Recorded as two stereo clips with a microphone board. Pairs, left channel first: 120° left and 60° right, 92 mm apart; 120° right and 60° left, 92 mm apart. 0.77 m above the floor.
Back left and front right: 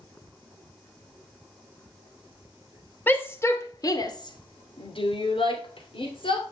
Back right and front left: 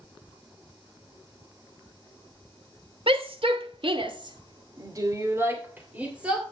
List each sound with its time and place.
3.1 s a shout: 50° left, 2.5 m; by 6.5 s 140° left, 3 m